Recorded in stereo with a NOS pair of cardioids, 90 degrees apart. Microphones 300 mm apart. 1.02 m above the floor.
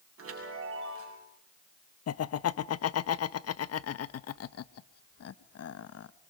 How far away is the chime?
About 8 m.